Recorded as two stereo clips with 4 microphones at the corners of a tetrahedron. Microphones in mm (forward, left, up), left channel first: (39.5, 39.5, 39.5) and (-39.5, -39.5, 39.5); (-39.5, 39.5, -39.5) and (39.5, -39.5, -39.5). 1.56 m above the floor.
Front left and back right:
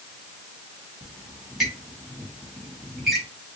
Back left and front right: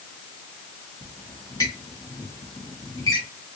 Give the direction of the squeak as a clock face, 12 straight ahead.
8 o'clock.